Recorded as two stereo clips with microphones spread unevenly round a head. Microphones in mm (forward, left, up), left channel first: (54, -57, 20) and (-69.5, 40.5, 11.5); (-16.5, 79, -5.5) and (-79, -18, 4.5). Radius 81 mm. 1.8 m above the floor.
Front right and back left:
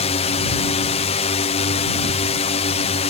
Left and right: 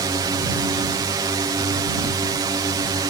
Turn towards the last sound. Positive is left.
turn(degrees=-70)